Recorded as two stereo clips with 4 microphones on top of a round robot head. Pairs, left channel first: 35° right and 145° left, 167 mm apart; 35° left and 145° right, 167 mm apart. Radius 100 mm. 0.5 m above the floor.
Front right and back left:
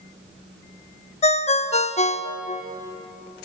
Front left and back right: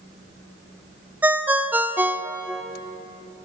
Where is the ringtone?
65° right, 0.7 m.